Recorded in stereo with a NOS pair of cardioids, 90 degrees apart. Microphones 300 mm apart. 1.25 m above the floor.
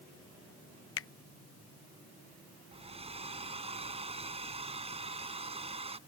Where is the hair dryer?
20° right.